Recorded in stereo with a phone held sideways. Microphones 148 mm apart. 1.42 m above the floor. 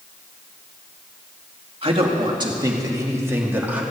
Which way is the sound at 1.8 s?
40° right (ahead or behind).